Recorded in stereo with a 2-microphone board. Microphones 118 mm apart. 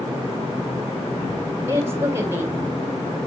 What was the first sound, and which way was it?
A woman speaking, 20° right (ahead or behind).